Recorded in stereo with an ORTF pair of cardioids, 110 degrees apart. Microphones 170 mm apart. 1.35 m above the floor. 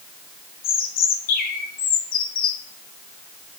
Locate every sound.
0.6 s a bird: 60° left, 1.9 m